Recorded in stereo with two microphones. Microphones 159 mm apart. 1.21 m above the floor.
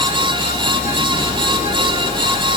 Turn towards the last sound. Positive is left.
No sound to turn to.